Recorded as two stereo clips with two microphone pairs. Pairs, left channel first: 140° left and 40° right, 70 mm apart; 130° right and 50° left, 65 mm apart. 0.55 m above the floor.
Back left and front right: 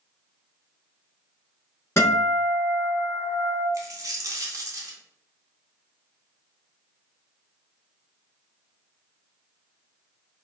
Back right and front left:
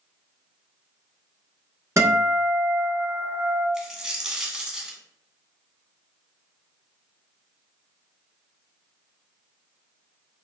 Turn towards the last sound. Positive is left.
turn(degrees=-30)